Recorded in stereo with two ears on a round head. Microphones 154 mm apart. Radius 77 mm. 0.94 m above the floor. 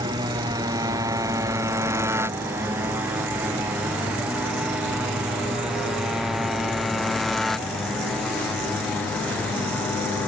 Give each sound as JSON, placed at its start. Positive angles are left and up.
{"t": 0.0, "sound": "a motorcycle", "side_deg": -25}